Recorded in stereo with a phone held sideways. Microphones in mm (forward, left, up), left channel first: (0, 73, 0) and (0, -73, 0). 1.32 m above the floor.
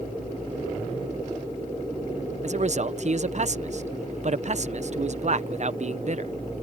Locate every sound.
2.4 s a man speaking: 50° right (ahead or behind)